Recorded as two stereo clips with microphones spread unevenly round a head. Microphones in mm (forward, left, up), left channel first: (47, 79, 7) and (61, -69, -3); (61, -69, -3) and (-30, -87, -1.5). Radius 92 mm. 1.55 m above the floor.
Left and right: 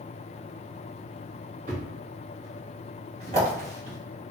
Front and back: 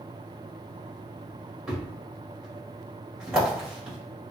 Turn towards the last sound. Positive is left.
turn(degrees=-90)